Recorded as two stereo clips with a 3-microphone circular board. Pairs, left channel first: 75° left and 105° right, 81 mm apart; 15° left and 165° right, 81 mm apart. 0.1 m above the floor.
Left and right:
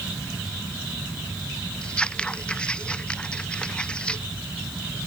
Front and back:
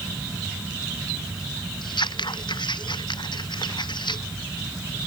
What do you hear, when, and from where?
1.8 s scissors: straight ahead